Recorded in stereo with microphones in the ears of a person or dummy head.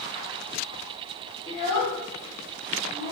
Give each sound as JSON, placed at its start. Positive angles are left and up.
{"t": 1.5, "sound": "a child speaking", "side_deg": 20, "distance_m": 0.6}